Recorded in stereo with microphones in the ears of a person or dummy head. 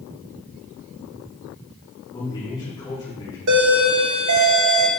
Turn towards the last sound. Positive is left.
turn(degrees=-70)  # may be behind; listen again after turning